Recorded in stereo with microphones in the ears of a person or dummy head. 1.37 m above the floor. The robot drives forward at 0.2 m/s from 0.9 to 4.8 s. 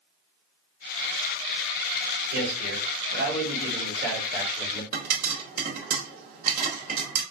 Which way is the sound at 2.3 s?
75° right (ahead or behind).